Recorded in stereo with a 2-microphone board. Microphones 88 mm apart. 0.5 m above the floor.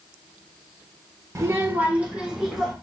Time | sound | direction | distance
1.4 | a child speaking | 35° right (ahead or behind) | 0.9 m